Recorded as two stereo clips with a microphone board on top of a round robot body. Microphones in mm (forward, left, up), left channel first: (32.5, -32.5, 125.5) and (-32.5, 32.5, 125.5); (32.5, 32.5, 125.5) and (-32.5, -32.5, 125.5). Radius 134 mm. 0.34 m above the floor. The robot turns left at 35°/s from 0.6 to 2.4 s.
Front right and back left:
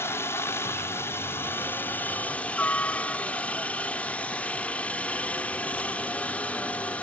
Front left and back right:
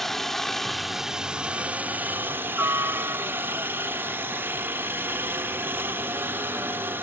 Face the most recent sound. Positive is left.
turn(degrees=-100)